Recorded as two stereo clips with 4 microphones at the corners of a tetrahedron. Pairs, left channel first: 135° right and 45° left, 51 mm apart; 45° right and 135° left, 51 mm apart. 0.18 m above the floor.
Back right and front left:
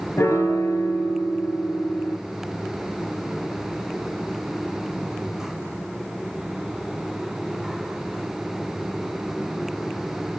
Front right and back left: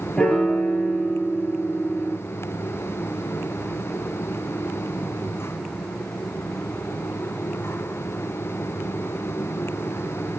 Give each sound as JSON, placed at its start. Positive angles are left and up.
{"t": 0.2, "sound": "a piano", "azimuth_deg": -120, "distance_m": 1.8}